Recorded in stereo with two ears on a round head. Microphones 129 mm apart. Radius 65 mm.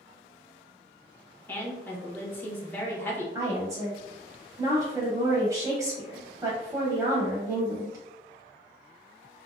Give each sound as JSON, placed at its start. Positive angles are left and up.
{"t": 1.5, "sound": "a woman speaking", "side_deg": 15, "distance_m": 0.8}
{"t": 3.4, "sound": "a woman speaking", "side_deg": -25, "distance_m": 0.7}